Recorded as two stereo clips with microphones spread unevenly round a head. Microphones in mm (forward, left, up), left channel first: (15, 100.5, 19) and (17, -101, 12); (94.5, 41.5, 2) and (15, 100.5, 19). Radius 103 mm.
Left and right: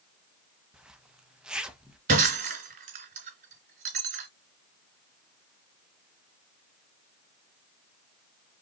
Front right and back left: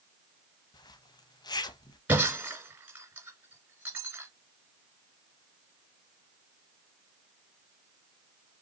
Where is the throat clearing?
I don't hear throat clearing.